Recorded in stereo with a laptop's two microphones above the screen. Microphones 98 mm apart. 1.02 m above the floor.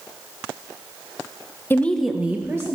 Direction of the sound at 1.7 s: 25° left (ahead or behind).